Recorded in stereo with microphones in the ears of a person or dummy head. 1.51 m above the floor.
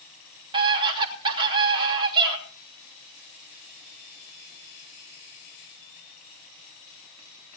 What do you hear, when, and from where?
0.5 s a scream: 30° right (ahead or behind), 3 m